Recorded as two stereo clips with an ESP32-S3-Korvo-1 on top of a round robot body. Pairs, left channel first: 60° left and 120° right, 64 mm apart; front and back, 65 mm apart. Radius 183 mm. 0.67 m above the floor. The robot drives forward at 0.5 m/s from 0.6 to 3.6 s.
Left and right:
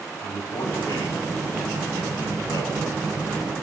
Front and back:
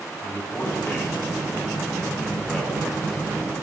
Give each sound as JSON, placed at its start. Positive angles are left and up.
{"t": 0.2, "sound": "a man speaking", "azimuth_deg": 60, "distance_m": 6.5}